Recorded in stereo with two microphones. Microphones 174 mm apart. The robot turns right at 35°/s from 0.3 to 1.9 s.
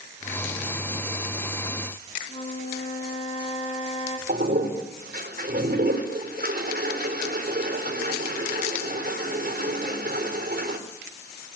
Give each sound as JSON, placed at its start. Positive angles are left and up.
{"t": 2.3, "sound": "a flute", "side_deg": 40, "distance_m": 3.0}
{"t": 4.3, "sound": "a toilet flushing", "side_deg": -65, "distance_m": 4.0}